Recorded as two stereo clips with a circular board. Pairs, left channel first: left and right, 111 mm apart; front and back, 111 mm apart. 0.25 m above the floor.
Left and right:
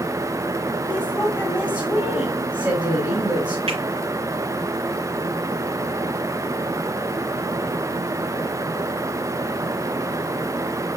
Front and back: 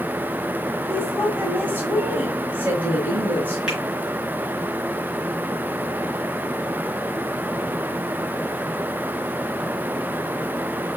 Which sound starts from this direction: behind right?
A woman speaking, at 0.9 s.